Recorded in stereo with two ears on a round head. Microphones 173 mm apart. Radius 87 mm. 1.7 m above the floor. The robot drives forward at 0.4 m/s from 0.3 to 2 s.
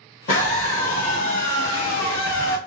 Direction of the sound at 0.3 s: 50° left (ahead or behind).